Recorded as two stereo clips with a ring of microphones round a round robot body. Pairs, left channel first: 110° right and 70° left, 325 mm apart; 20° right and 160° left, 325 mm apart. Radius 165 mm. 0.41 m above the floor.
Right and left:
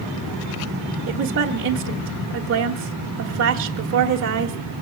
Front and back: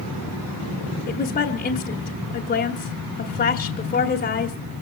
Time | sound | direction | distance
1.1 | a woman speaking | 35° left | 1.3 m